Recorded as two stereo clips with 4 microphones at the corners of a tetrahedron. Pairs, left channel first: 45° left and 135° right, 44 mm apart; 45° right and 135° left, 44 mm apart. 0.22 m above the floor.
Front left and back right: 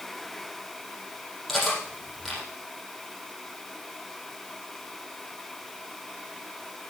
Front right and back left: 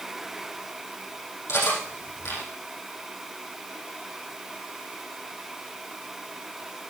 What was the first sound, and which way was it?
Cutlery clinking, 40° right.